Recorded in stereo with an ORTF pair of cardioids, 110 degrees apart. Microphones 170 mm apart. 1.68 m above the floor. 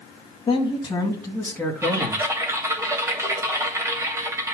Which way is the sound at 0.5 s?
30° left.